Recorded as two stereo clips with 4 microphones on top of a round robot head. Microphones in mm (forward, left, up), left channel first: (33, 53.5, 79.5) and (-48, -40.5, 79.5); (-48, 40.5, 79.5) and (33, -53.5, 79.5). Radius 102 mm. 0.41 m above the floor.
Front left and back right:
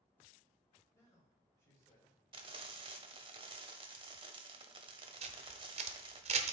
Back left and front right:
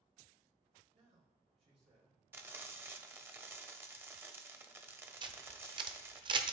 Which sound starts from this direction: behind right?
Frying, at 2.3 s.